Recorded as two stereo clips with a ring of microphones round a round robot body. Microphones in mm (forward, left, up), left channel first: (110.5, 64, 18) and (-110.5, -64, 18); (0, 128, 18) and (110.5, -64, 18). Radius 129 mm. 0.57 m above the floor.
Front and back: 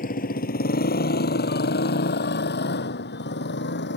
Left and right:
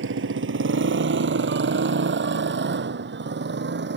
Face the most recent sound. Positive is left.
turn(degrees=-20)